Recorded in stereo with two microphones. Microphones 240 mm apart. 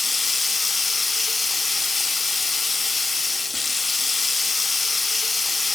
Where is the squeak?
No squeak in this recording.